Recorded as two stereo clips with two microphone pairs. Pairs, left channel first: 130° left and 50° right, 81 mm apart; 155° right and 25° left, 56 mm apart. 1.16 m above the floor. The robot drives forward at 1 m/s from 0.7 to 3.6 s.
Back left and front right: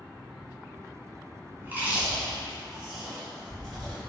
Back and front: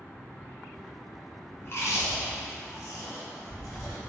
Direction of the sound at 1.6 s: 110° right.